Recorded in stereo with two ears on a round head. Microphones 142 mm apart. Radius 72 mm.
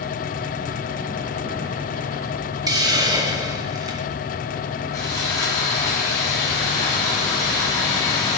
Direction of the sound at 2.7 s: 25° right (ahead or behind).